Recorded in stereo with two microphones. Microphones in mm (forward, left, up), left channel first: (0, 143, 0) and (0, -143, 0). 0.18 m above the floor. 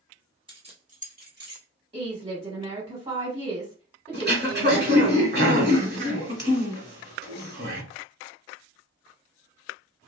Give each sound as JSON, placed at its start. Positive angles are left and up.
{"t": 0.5, "sound": "keys jangling", "side_deg": -20, "distance_m": 0.9}
{"t": 1.9, "sound": "a woman speaking", "side_deg": -20, "distance_m": 1.1}
{"t": 4.1, "sound": "throat clearing", "side_deg": -40, "distance_m": 1.1}